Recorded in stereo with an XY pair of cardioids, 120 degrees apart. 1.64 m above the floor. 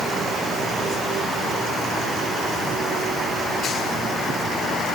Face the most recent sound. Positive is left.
No sound to turn to.